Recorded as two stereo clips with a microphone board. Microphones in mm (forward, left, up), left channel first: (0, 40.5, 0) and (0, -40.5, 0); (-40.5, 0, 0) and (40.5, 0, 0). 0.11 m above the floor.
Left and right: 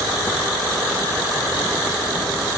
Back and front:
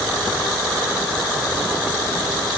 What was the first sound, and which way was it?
Only background noise.